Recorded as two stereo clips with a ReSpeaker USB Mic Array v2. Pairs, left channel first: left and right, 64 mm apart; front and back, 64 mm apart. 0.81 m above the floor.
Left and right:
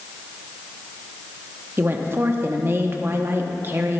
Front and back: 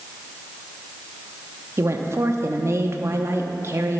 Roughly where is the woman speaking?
Behind right.